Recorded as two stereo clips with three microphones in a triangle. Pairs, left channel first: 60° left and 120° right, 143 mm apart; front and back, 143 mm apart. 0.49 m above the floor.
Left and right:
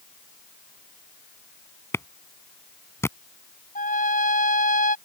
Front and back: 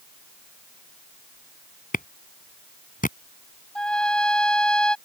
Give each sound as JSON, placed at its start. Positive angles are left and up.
{"t": 1.9, "sound": "a clap", "azimuth_deg": -10}
{"t": 3.8, "sound": "a trumpet", "azimuth_deg": 85}